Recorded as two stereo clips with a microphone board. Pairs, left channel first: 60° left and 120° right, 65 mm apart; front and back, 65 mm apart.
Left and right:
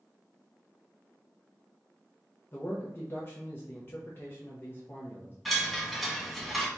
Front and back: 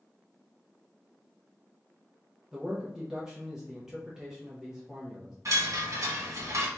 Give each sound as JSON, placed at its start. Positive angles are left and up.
{"t": 2.5, "sound": "a man speaking", "azimuth_deg": 105, "distance_m": 0.8}
{"t": 5.5, "sound": "a chime", "azimuth_deg": 150, "distance_m": 1.4}